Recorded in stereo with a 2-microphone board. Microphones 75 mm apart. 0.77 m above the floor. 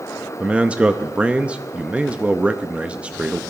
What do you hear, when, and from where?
0.4 s a man speaking: 15° right (ahead or behind), 0.6 m